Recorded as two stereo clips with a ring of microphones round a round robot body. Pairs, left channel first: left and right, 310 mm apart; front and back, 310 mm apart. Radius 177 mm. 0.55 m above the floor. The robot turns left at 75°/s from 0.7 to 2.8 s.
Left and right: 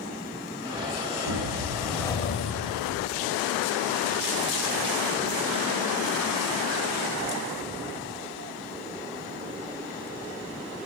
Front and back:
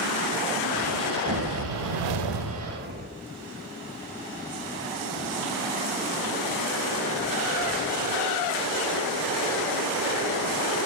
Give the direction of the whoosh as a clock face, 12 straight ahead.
4 o'clock.